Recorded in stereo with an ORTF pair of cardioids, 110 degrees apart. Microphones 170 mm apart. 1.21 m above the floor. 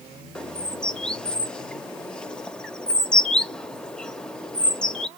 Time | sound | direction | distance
0.3 | a bird | 5° left | 0.5 m